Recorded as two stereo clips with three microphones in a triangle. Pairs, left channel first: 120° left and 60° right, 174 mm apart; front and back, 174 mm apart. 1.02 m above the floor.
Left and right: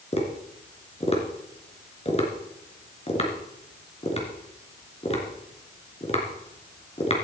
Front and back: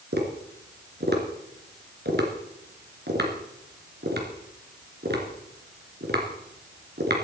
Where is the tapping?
170° left, 3 m.